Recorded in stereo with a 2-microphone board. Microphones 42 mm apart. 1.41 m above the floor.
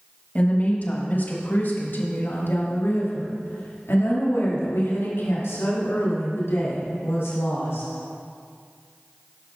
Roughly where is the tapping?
I don't hear tapping.